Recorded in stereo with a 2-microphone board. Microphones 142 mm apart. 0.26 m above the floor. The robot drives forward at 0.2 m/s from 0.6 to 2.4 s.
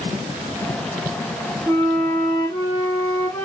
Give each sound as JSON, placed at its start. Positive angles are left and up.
{"t": 1.7, "sound": "a flute", "side_deg": 25, "distance_m": 0.8}